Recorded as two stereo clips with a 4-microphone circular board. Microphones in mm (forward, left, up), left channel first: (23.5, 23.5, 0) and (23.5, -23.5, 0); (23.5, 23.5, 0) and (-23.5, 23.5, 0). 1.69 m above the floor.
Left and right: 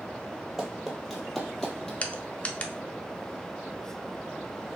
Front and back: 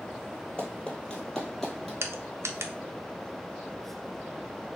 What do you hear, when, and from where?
0.6 s running footsteps: 25° right, 1.7 m; by 1.9 s 70° left, 1.7 m
2.0 s crushing: 155° left, 0.6 m